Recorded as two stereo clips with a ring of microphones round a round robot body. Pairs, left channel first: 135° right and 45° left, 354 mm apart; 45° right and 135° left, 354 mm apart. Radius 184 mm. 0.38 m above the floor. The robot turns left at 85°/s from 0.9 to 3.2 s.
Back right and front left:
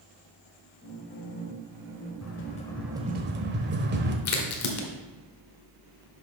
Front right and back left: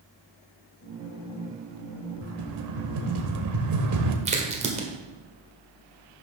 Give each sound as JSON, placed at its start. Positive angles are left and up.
{"t": 2.2, "sound": "a rattle", "azimuth_deg": -175, "distance_m": 1.2}
{"t": 4.2, "sound": "a crack", "azimuth_deg": -160, "distance_m": 1.4}